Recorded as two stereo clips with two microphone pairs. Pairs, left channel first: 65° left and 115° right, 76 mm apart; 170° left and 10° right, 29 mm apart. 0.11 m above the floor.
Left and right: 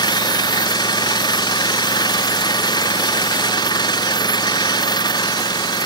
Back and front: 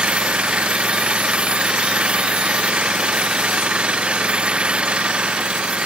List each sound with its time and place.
0.0 s an engine running: 40° left